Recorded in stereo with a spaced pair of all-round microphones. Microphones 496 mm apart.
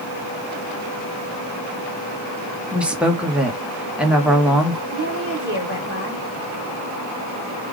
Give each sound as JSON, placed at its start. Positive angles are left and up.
{"t": 2.7, "sound": "a woman speaking", "side_deg": 0, "distance_m": 1.0}
{"t": 4.9, "sound": "a woman speaking", "side_deg": -25, "distance_m": 2.0}